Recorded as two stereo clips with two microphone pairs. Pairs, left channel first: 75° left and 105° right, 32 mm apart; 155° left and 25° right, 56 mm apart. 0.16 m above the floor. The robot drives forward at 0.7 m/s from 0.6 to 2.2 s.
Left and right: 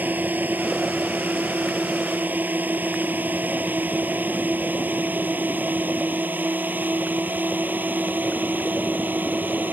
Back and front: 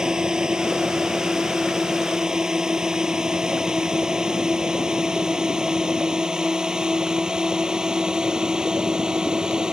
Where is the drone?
100° right.